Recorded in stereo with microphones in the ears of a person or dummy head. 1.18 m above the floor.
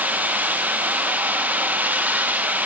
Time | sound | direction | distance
0.0 | running water | 10° right (ahead or behind) | 0.8 m